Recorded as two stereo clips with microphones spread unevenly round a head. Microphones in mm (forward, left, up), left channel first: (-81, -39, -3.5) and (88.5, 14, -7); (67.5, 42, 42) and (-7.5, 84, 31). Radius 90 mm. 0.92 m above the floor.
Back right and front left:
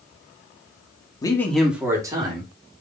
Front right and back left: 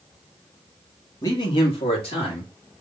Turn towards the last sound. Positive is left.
turn(degrees=-45)